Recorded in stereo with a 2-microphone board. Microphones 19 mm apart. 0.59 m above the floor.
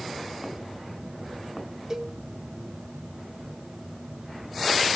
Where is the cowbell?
30° right (ahead or behind), 1.0 m.